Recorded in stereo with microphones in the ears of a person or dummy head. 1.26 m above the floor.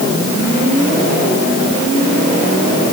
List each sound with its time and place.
Only background noise.